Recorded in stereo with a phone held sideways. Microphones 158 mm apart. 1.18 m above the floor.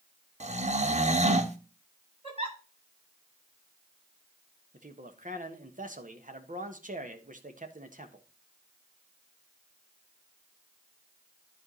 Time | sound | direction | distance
0.4 | snoring | 45° right (ahead or behind) | 0.9 m
2.2 | a giggle | 40° right (ahead or behind) | 9 m
4.7 | a man speaking | 55° right (ahead or behind) | 1.4 m